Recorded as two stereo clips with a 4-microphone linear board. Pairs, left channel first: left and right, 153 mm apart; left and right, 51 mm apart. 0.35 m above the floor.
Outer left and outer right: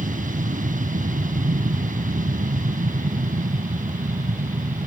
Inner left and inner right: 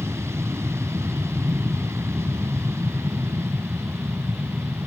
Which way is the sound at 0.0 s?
55° right (ahead or behind).